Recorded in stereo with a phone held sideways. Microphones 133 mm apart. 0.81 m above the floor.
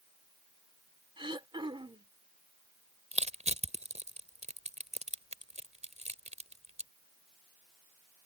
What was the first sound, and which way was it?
Throat clearing, 40° right (ahead or behind).